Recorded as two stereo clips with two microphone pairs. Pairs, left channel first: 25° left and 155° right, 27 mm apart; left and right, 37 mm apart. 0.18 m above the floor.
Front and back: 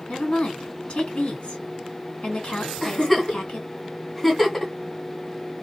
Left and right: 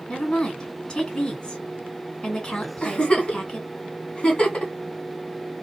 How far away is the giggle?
About 1.8 m.